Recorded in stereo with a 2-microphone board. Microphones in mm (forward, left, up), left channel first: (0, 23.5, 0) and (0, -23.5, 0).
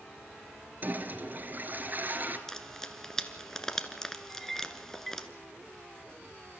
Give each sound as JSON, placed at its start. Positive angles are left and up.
{"t": 0.8, "sound": "a toilet flushing", "side_deg": -40, "distance_m": 1.9}
{"t": 2.5, "sound": "frying", "side_deg": 10, "distance_m": 1.2}
{"t": 4.3, "sound": "a clink", "side_deg": 5, "distance_m": 0.8}